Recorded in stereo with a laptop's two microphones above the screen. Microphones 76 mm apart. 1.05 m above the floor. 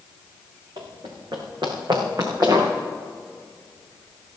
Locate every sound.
0.8 s running footsteps: 75° right (ahead or behind), 3.5 m; by 2.7 s 55° right (ahead or behind), 5 m